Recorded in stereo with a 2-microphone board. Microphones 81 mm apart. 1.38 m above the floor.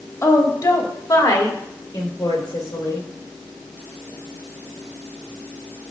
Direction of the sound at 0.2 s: 40° left (ahead or behind).